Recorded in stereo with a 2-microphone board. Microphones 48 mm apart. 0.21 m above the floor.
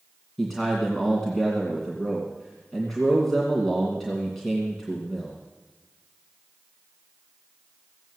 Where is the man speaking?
Centre (ahead or behind), 2 m.